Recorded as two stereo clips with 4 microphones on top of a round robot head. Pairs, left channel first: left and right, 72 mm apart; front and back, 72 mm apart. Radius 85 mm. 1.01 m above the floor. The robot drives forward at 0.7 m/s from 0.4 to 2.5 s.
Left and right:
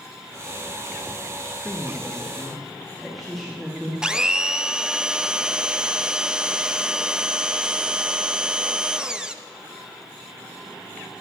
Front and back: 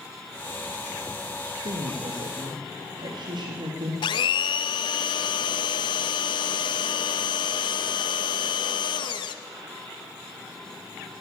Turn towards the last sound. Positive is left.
turn(degrees=-10)